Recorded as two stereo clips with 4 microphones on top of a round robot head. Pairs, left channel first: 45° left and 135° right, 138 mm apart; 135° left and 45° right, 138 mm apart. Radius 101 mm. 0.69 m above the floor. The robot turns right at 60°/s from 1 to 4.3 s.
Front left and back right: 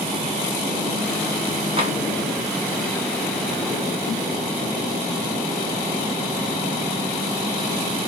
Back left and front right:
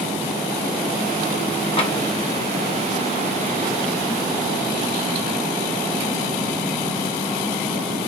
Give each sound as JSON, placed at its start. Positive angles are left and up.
{"t": 1.8, "sound": "tapping", "azimuth_deg": 180, "distance_m": 1.3}